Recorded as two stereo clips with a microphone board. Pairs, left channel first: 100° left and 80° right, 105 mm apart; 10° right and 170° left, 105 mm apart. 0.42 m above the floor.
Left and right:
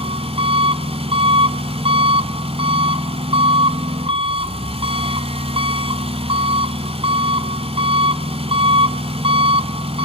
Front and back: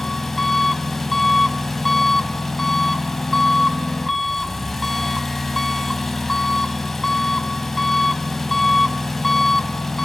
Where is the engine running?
100° right, 0.9 m.